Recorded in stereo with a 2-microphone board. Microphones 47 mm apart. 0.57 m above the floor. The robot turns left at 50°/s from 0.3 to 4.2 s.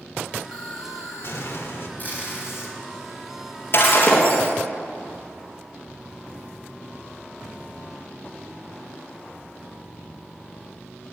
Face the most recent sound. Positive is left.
turn(degrees=30)  # may be behind; listen again after turning